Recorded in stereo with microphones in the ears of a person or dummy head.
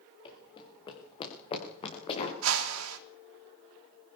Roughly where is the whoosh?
Right.